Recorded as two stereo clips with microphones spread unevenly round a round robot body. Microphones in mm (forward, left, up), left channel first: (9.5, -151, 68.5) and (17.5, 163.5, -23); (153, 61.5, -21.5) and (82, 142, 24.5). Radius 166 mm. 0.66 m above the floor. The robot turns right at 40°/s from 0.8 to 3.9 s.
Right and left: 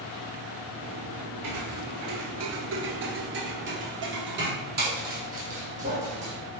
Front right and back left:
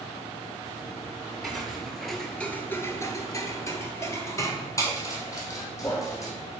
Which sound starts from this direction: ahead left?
Footsteps, at 1.4 s.